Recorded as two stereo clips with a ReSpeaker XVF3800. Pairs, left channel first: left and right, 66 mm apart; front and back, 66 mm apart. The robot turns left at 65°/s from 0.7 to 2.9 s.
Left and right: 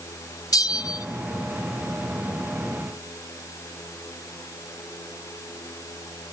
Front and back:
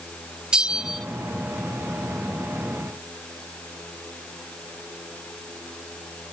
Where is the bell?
105° left, 0.8 m; by 1.1 s 85° left, 0.8 m.